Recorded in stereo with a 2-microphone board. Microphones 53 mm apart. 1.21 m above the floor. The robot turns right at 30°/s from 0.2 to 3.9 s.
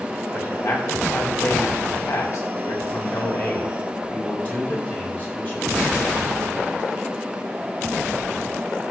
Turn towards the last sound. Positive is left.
turn(degrees=150)